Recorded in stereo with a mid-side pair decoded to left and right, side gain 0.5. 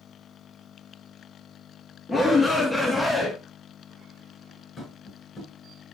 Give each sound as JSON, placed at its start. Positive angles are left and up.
{"t": 2.1, "sound": "a shout", "azimuth_deg": 20, "distance_m": 3.0}
{"t": 4.8, "sound": "tapping", "azimuth_deg": 45, "distance_m": 6.0}